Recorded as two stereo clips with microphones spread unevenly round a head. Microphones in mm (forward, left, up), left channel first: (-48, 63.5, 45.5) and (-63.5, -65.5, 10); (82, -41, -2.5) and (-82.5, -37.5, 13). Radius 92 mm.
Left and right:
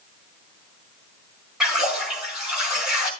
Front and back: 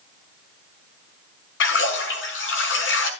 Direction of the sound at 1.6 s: 10° right.